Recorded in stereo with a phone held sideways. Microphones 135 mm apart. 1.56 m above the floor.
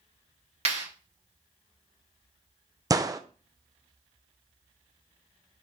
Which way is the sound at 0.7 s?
50° right (ahead or behind).